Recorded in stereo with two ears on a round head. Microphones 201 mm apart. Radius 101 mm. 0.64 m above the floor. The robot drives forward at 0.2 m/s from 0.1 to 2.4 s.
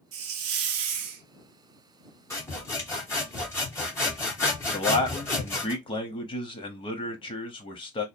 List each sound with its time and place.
0.1 s a hiss: 65° right (ahead or behind), 0.6 m; by 1.2 s 70° right (ahead or behind), 0.6 m
2.3 s sawing: 10° left (ahead or behind), 1.1 m
4.7 s a man speaking: 25° left (ahead or behind), 0.5 m